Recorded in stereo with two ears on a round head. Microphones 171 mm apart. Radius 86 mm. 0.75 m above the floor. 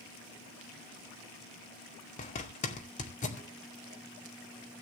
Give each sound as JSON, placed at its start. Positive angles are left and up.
{"t": 2.2, "sound": "a zipper", "side_deg": 35, "distance_m": 2.5}